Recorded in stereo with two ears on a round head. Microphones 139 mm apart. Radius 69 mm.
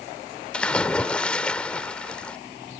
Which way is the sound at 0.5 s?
5° left (ahead or behind).